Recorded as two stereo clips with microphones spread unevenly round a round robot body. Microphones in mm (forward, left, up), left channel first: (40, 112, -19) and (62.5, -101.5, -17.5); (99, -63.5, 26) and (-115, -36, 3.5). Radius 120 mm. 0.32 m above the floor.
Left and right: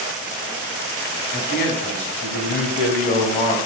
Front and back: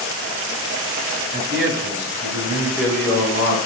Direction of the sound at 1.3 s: 140° left.